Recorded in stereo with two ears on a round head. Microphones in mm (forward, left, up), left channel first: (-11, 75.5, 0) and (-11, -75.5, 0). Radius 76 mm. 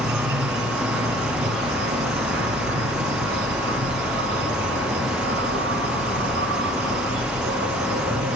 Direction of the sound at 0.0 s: 70° right (ahead or behind).